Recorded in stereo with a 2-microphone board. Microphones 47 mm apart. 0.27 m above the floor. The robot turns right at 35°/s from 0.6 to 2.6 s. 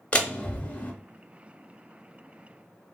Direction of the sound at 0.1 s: 25° left (ahead or behind).